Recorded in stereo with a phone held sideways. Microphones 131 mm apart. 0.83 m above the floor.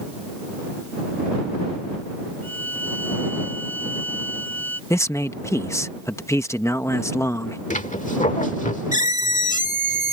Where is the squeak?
75° left (ahead or behind).